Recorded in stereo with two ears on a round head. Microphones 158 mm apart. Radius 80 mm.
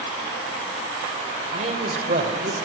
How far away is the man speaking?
About 2 m.